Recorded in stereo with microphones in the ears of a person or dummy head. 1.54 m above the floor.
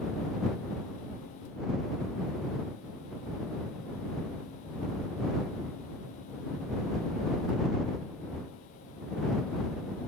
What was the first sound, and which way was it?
Only background noise.